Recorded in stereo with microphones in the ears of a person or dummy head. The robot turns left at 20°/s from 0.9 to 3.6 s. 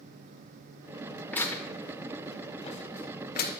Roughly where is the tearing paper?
Centre.